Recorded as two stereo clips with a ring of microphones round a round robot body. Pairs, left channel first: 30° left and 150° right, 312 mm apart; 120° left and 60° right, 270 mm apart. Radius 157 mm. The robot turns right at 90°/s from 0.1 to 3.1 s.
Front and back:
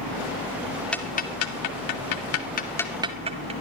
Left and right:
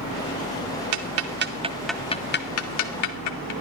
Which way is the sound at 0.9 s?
55° right.